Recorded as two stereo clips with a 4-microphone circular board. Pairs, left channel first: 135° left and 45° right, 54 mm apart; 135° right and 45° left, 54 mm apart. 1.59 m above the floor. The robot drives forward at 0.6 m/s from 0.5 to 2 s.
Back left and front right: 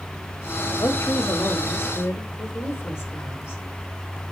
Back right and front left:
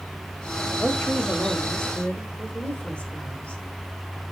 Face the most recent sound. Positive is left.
turn(degrees=165)